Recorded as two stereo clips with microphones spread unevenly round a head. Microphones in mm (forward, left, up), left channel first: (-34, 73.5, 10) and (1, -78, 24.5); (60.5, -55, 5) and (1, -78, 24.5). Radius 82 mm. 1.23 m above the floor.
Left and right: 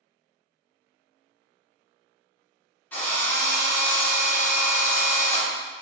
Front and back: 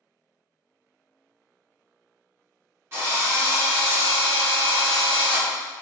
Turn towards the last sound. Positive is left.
turn(degrees=-175)